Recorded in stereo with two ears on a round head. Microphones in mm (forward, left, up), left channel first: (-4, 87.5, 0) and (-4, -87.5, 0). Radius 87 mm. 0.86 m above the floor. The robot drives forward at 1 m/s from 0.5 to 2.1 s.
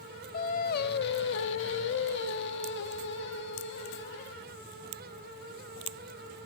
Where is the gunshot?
I don't hear a gunshot.